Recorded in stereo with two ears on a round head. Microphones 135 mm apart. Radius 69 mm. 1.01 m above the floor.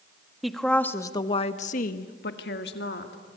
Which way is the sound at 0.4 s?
Centre (ahead or behind).